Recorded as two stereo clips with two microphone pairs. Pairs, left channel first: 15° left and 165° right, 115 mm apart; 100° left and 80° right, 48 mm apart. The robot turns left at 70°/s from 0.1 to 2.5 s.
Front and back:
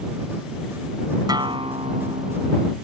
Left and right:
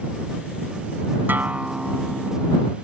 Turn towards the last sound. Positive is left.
turn(degrees=160)